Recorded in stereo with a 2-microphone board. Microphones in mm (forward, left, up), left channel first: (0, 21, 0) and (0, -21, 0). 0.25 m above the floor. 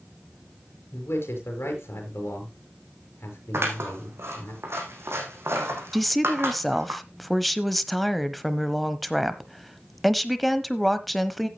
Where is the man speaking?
75° left (ahead or behind), 5.5 m.